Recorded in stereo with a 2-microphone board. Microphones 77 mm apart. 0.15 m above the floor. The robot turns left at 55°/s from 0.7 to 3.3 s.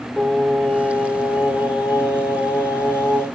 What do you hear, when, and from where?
0.2 s singing: 165° left, 7 m; by 3.2 s 25° left, 7 m